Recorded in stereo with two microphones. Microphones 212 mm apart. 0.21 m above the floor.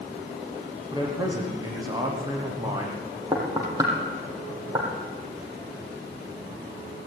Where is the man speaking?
20° right (ahead or behind), 9.5 m.